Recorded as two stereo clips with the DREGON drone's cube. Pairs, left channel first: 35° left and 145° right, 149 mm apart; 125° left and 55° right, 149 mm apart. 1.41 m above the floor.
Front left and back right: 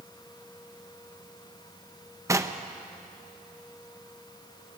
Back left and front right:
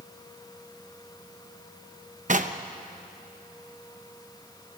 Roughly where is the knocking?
Right.